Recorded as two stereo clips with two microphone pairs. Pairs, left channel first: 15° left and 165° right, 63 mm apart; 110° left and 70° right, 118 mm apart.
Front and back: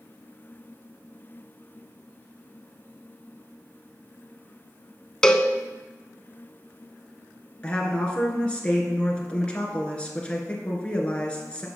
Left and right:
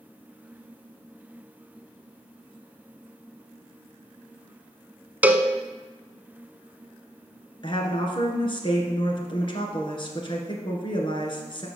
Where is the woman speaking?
85° left, 1.8 m.